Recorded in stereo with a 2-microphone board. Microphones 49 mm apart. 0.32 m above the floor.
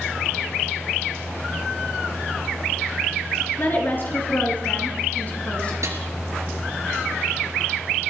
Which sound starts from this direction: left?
A woman speaking, at 3.6 s.